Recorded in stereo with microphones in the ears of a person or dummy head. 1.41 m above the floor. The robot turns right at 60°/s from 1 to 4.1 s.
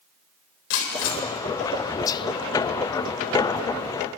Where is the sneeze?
I don't hear a sneeze.